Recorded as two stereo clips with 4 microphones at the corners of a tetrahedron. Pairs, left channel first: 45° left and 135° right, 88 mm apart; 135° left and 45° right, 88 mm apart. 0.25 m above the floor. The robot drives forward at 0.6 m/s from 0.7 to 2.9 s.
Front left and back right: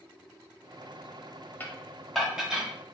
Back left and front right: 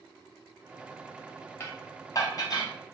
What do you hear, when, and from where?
1.6 s dishes clattering: 100° left, 0.9 m; by 2.7 s 150° left, 1.2 m